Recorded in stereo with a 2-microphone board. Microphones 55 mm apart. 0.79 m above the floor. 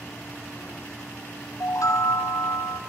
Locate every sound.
1.6 s a chime: 70° left (ahead or behind), 2 m